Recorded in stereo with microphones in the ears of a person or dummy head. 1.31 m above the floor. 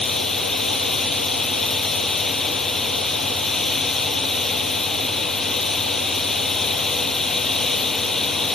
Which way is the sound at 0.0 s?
5° left (ahead or behind).